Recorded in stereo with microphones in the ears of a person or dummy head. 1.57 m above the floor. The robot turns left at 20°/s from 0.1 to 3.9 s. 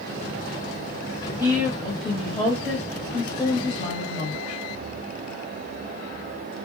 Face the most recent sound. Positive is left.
turn(degrees=145)